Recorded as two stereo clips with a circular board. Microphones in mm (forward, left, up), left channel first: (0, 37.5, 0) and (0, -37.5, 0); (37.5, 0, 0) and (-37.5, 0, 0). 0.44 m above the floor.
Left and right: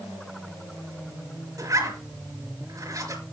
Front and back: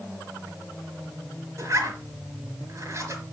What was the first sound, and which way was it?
A zipper, 130° right.